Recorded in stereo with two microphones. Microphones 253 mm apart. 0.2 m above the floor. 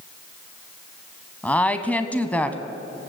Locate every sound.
1.4 s a woman speaking: 5° left (ahead or behind), 1.5 m